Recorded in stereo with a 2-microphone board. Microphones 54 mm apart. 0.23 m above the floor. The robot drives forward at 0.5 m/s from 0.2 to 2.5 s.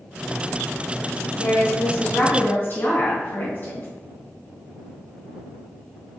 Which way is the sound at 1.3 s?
45° left (ahead or behind).